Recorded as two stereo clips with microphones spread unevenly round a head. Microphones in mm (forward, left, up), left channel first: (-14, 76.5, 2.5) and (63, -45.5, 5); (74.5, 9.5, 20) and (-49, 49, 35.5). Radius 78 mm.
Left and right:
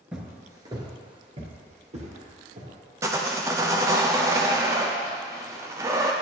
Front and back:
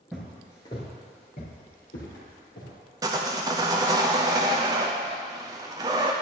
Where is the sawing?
130° right, 0.7 m.